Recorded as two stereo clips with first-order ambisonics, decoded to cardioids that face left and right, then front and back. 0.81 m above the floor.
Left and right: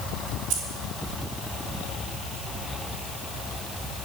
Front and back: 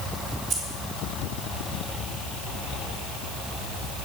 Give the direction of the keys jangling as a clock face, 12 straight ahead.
3 o'clock.